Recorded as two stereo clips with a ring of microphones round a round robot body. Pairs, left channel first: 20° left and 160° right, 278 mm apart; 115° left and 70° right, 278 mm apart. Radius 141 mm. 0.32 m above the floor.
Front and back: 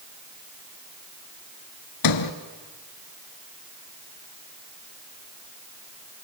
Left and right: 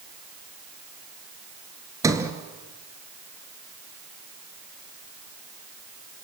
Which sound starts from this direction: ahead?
A sliding door, at 2.0 s.